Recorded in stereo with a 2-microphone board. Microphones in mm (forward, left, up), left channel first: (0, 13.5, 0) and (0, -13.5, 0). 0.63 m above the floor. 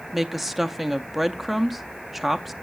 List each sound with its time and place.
0.1 s a woman speaking: 5° right (ahead or behind), 0.6 m